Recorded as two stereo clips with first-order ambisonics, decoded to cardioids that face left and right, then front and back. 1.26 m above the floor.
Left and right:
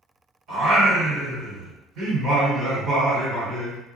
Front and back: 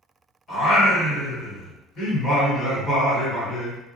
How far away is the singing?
About 1.6 m.